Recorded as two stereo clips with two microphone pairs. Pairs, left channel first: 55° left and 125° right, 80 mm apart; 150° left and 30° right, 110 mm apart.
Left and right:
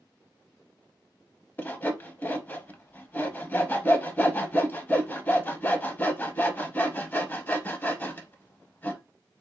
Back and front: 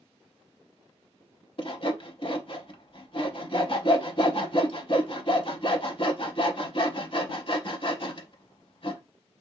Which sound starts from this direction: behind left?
Sawing, at 1.6 s.